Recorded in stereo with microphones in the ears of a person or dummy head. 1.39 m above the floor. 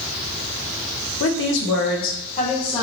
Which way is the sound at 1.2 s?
65° left (ahead or behind).